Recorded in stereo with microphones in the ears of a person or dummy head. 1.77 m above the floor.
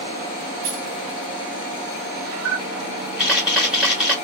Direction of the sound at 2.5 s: Centre (ahead or behind).